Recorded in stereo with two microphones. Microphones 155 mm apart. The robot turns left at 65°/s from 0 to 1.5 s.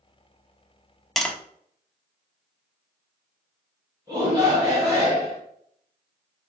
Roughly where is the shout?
Right.